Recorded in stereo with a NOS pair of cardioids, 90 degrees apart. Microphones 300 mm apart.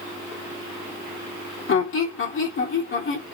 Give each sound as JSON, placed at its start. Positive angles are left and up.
{"t": 1.7, "sound": "a squeak", "azimuth_deg": 45, "distance_m": 1.1}